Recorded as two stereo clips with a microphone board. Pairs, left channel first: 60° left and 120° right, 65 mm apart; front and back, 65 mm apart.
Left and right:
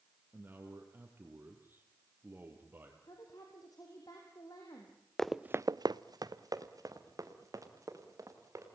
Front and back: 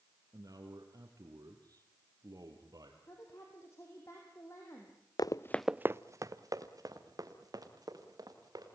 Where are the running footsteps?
25° right, 0.7 m; by 8.7 s 160° right, 4.5 m.